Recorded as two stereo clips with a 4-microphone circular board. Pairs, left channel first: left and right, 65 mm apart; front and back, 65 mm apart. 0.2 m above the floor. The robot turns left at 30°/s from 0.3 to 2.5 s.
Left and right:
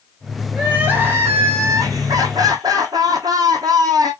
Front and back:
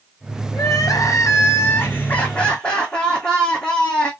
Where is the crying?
15° right, 1.6 m; by 4.1 s 75° right, 1.6 m.